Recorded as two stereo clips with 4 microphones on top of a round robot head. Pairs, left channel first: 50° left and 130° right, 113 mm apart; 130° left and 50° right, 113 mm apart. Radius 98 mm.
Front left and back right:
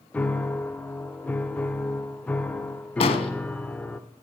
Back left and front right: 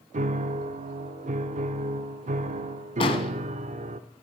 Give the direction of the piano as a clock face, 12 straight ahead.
1 o'clock.